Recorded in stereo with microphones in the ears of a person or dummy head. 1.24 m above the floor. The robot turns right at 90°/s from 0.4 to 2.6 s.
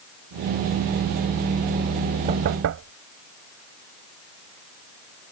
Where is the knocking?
40° right (ahead or behind); by 2.9 s 70° right (ahead or behind).